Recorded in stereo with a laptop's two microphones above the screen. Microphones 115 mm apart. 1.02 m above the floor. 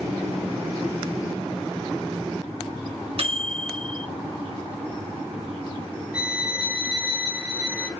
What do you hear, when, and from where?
3.2 s a microwave: 55° right (ahead or behind), 1.3 m
6.1 s a violin: 10° right (ahead or behind), 1.2 m